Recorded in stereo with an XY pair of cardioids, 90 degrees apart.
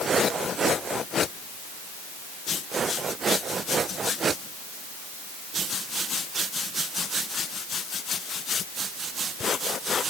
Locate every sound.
Only background noise.